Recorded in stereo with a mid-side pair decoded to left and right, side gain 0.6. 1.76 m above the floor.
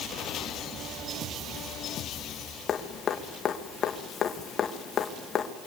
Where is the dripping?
40° left, 2.5 m.